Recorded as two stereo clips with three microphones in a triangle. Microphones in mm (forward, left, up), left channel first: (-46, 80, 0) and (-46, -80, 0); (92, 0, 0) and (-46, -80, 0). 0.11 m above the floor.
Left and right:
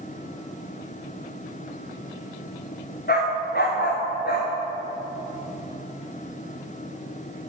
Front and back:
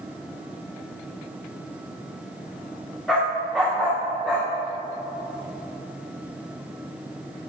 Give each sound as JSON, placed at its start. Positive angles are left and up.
{"t": 3.1, "sound": "a dog barking", "azimuth_deg": 120, "distance_m": 4.0}